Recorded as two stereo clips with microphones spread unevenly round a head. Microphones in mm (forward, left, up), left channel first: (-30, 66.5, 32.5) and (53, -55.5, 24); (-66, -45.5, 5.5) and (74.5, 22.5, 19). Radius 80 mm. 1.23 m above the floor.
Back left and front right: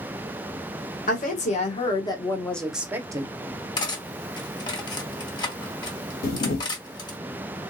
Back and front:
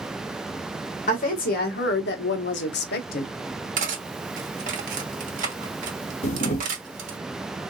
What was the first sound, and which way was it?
A woman speaking, 165° left.